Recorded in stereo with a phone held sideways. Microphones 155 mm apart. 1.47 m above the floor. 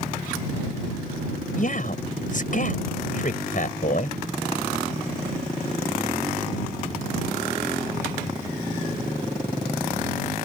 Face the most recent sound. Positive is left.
turn(degrees=60)  # may be behind; listen again after turning